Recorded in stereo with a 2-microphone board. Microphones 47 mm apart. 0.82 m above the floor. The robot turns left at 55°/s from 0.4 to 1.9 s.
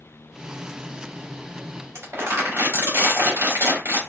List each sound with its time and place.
1.9 s crumpling: 60° right (ahead or behind), 2 m